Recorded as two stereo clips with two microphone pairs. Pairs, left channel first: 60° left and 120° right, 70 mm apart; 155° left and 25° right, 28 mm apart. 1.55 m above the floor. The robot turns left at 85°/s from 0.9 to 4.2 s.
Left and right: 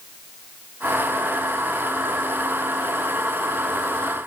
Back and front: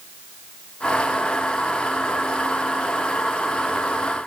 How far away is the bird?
No bird in this recording.